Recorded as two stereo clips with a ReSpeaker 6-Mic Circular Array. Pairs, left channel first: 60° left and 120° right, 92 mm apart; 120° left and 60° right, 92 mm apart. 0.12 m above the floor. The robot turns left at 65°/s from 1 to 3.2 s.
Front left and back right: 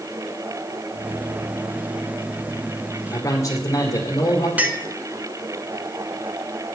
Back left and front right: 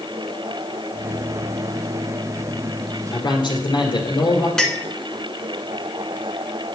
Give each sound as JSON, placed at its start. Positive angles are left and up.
{"t": 3.1, "sound": "a man speaking", "azimuth_deg": 115, "distance_m": 1.9}
{"t": 4.6, "sound": "a clink", "azimuth_deg": -165, "distance_m": 1.0}